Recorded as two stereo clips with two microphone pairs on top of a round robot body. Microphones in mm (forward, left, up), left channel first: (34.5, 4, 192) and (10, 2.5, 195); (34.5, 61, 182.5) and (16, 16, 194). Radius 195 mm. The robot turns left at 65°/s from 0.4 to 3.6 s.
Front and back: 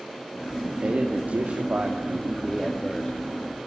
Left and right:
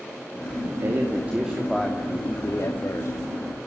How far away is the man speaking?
About 3 m.